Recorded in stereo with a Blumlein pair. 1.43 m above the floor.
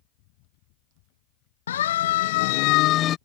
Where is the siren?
65° left; by 3.2 s 30° left.